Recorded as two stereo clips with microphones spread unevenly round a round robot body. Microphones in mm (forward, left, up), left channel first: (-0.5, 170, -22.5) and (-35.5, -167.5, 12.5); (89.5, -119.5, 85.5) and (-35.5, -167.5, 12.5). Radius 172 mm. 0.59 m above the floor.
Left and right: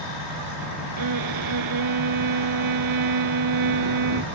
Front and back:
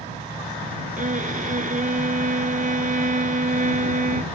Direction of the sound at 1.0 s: 125° right.